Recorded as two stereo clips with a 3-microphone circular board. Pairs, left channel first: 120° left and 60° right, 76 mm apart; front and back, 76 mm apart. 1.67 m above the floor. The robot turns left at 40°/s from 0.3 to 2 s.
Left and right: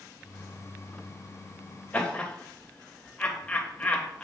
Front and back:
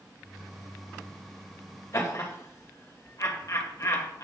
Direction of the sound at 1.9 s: 50° left.